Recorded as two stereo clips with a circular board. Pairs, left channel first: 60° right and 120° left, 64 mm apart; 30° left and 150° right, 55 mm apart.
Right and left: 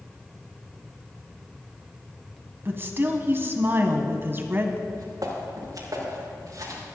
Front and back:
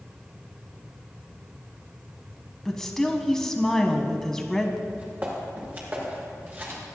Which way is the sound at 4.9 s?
150° left.